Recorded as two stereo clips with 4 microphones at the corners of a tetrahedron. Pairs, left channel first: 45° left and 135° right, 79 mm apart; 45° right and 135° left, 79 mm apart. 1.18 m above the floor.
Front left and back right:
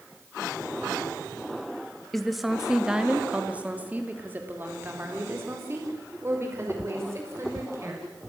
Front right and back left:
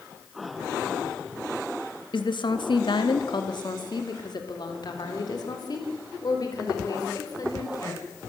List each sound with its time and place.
2.1 s a woman speaking: 40° right, 1.9 m; by 8.0 s 85° right, 5.5 m